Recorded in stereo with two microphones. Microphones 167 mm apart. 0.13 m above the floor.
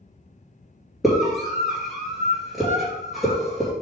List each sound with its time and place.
1.0 s a scream: centre (ahead or behind), 2.5 m